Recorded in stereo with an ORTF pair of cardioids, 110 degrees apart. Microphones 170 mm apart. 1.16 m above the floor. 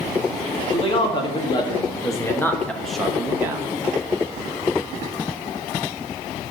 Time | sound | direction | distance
0.7 | a man speaking | 35° left | 2 m